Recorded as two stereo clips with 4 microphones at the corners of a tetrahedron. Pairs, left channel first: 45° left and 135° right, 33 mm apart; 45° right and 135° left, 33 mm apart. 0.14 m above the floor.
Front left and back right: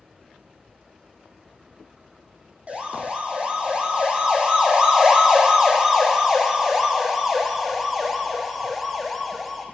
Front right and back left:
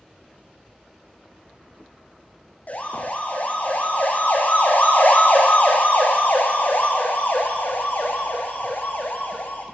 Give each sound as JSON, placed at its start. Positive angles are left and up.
{"t": 2.7, "sound": "a siren", "azimuth_deg": -85, "distance_m": 6.0}